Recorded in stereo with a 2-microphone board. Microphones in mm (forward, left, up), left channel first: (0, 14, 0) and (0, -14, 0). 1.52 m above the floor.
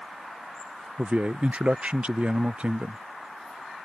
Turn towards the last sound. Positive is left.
turn(degrees=-40)  # may be behind; listen again after turning